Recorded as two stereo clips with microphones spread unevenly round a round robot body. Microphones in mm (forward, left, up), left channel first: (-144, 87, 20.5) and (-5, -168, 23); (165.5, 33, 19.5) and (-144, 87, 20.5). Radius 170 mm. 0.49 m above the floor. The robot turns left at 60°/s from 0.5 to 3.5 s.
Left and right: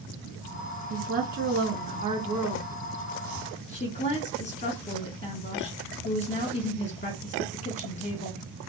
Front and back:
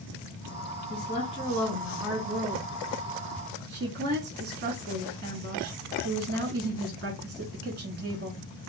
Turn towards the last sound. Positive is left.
turn(degrees=165)